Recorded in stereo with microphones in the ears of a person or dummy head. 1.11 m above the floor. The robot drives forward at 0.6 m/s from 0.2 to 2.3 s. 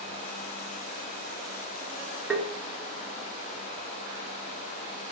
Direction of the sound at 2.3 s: Centre (ahead or behind).